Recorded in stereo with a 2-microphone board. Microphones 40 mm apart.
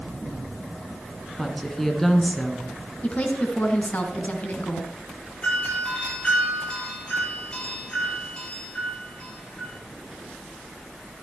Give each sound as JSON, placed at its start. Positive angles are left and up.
{"t": 1.4, "sound": "a woman speaking", "side_deg": 10, "distance_m": 2.5}
{"t": 3.0, "sound": "a woman speaking", "side_deg": 40, "distance_m": 2.5}
{"t": 5.4, "sound": "a doorbell", "side_deg": 30, "distance_m": 9.0}